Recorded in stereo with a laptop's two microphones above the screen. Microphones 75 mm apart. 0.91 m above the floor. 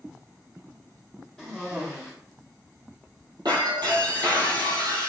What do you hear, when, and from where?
1.4 s a cough: 5° right (ahead or behind), 1.1 m
3.5 s breaking glass: 70° right (ahead or behind), 2.5 m